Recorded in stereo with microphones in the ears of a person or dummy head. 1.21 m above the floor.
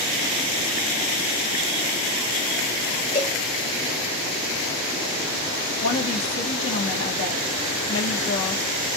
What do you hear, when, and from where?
3.1 s a cowbell: 30° left (ahead or behind), 3.5 m
5.8 s a woman speaking: 70° left (ahead or behind), 1.5 m